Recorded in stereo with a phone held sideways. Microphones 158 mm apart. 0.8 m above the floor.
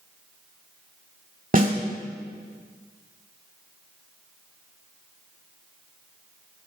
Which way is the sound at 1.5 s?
55° right (ahead or behind).